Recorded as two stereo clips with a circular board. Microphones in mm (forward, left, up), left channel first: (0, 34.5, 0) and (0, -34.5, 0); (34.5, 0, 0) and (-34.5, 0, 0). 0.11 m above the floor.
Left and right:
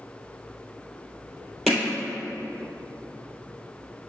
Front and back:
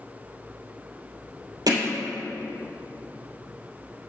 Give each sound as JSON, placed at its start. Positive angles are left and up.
{"t": 1.7, "sound": "hammering", "azimuth_deg": 180, "distance_m": 2.0}